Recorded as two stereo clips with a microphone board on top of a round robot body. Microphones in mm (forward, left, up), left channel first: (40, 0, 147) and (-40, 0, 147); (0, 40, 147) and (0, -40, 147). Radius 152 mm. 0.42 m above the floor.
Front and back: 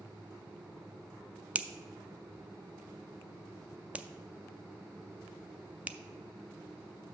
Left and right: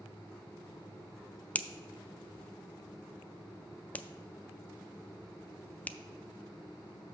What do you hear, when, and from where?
1.6 s a finger snap: 130° left, 0.6 m